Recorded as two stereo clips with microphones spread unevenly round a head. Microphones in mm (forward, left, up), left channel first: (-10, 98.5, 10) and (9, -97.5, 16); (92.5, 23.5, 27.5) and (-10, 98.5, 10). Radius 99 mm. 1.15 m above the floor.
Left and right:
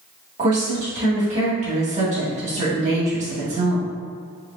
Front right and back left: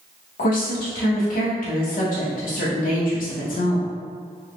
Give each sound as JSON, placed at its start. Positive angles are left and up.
{"t": 0.4, "sound": "a woman speaking", "azimuth_deg": -25, "distance_m": 1.6}